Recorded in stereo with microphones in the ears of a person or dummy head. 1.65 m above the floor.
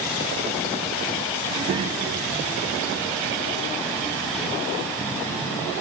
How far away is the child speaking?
About 0.6 m.